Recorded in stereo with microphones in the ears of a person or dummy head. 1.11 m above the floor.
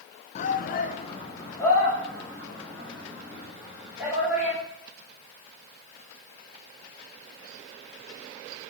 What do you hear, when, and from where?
0.3 s a shout: 40° left (ahead or behind), 0.6 m; by 4.6 s 5° right (ahead or behind), 4 m